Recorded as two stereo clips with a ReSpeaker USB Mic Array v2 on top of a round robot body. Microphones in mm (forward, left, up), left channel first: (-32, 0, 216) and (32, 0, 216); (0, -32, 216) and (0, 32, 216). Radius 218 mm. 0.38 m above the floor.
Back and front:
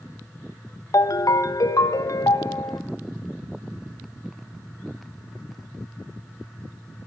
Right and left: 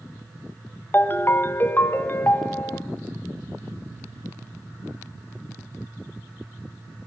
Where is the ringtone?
150° right, 0.8 m.